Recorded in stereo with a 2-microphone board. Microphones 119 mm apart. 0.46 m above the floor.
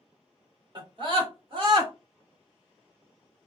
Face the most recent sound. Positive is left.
turn(degrees=-45)  # may be behind; listen again after turning